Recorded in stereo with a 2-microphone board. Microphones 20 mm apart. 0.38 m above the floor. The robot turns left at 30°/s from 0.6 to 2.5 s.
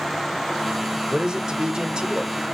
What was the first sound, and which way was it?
A man speaking, 55° right.